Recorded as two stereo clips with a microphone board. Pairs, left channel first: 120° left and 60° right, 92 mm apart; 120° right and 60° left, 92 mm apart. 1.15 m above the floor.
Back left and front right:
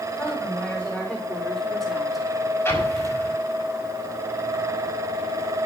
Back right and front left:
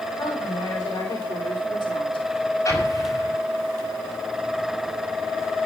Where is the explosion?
175° right, 5.5 m.